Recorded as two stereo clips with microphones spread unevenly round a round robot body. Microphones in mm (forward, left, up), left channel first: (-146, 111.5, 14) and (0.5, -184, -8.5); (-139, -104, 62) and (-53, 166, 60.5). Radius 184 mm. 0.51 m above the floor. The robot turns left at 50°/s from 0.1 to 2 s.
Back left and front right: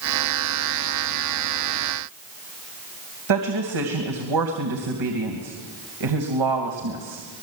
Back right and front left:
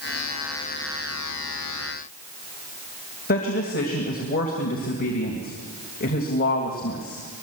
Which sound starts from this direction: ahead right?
A woman speaking, at 3.3 s.